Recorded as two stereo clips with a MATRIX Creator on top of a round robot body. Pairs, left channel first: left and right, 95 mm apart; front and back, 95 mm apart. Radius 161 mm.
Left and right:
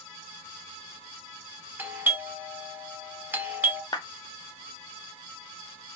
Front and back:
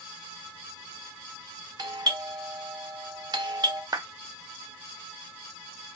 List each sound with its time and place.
1.8 s a doorbell: 155° right, 1.3 m
3.9 s a clap: 130° left, 1.0 m